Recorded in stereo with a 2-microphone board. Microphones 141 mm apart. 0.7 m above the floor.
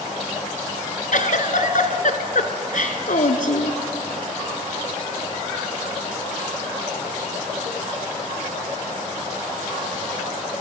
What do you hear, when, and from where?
1.1 s a giggle: 70° left (ahead or behind), 1.5 m